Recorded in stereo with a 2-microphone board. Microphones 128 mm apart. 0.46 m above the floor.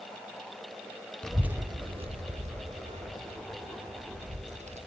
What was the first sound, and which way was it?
A child speaking, 5° left (ahead or behind).